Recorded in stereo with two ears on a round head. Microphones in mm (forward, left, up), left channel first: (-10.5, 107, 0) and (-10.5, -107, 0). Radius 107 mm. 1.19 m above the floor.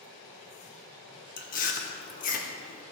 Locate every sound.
1.4 s chewing: 35° left (ahead or behind), 0.9 m